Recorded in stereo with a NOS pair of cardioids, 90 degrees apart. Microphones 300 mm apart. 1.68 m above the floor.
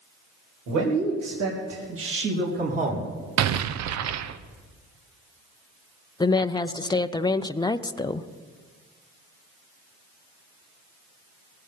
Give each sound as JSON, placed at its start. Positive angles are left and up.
{"t": 0.7, "sound": "a man speaking", "azimuth_deg": -70, "distance_m": 4.0}
{"t": 3.4, "sound": "an explosion", "azimuth_deg": -60, "distance_m": 0.8}
{"t": 6.2, "sound": "a woman speaking", "azimuth_deg": 15, "distance_m": 0.5}